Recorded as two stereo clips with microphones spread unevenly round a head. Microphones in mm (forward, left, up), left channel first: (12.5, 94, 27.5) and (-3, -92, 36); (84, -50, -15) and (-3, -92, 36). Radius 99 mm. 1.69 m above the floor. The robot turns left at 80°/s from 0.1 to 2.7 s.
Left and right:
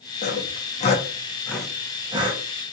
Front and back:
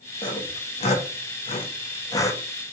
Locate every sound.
0.2 s sawing: 105° left, 0.9 m; by 2.4 s 70° right, 0.9 m